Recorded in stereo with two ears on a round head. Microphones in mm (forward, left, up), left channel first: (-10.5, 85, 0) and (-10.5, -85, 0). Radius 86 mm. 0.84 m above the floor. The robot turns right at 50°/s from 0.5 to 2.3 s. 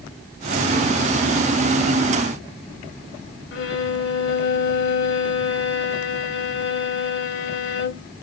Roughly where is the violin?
Left.